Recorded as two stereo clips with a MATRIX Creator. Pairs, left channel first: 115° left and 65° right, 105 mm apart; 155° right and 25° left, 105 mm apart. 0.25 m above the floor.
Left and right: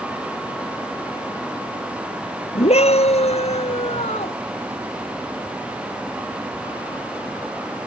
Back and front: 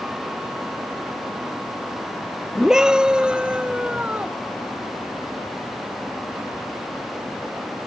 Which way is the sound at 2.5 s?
105° left.